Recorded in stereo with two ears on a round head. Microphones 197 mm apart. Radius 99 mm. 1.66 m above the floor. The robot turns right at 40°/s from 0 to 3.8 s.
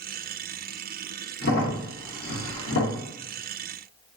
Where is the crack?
45° left (ahead or behind), 1.0 m; by 3.0 s 65° left (ahead or behind), 1.0 m.